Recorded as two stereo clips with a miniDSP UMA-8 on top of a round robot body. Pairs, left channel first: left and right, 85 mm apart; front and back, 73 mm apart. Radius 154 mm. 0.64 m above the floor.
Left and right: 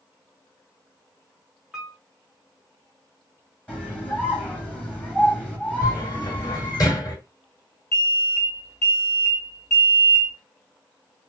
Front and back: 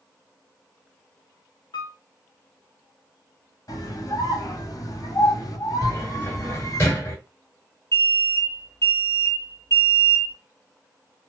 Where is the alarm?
45° left, 3 m.